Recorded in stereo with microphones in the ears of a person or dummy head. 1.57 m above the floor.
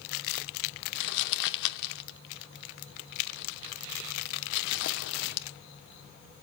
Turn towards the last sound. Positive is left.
turn(degrees=60)  # may be behind; listen again after turning